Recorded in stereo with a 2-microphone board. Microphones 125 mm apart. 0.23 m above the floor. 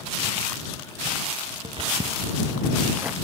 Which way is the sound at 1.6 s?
50° right (ahead or behind).